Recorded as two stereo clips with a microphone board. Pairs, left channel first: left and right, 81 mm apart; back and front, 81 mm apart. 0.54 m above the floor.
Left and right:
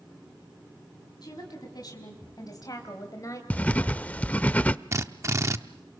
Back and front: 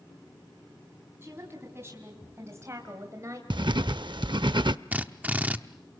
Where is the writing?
20° left, 0.5 m.